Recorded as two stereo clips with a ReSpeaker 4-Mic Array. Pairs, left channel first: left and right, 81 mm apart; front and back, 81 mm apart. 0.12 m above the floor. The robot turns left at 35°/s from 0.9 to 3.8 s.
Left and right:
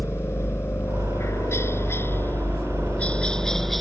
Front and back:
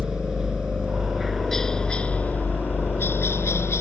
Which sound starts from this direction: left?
A helicopter, at 0.0 s.